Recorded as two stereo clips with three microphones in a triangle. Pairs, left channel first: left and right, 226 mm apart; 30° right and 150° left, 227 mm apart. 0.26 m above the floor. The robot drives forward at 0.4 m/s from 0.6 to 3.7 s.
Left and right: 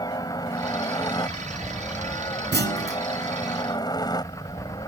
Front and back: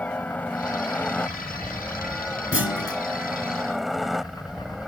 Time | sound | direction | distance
0.0 | a helicopter | 45° left | ?
2.5 | a clunk | 55° right | ?